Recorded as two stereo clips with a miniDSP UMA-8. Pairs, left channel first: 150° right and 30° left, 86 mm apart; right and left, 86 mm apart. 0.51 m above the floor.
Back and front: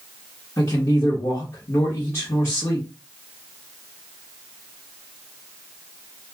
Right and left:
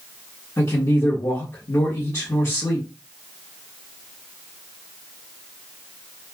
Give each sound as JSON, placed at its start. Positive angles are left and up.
{"t": 0.6, "sound": "a man speaking", "azimuth_deg": -115, "distance_m": 1.3}